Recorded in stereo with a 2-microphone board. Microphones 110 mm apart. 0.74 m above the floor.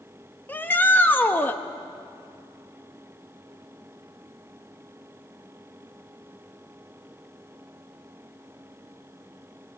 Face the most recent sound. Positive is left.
turn(degrees=15)  # may be behind; listen again after turning